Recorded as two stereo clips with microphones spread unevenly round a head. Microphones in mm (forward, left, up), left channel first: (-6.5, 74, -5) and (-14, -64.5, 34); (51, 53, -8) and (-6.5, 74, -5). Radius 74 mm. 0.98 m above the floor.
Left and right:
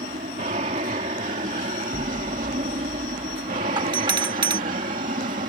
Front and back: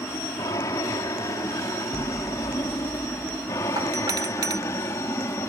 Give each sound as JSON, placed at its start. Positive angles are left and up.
{"t": 0.0, "sound": "an aircraft", "azimuth_deg": -55}
{"t": 1.9, "sound": "an explosion", "azimuth_deg": -65}
{"t": 3.8, "sound": "a doorbell", "azimuth_deg": -155}